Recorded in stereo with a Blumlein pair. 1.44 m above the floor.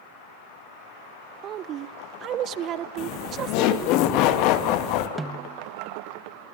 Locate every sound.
1.4 s a woman speaking: 30° right, 1.0 m
3.0 s laughter: 40° left, 2.5 m
5.2 s a snare drum: 10° right, 1.1 m